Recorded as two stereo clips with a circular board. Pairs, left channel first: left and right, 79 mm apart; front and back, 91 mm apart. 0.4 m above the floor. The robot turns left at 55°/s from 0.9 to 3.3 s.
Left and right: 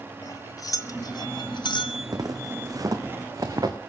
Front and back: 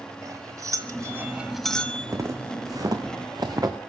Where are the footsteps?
125° right, 2.0 m; by 3.8 s 130° right, 2.5 m.